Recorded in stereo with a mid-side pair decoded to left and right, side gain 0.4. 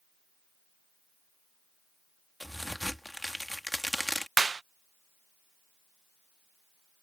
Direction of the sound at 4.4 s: 35° right.